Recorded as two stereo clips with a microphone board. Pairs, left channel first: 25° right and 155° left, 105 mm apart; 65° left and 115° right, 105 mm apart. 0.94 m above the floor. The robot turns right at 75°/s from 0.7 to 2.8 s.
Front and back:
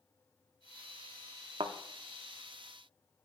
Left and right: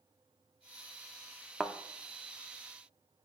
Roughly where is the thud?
Behind left.